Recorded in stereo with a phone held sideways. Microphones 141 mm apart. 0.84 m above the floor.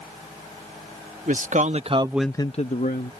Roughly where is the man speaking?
Right.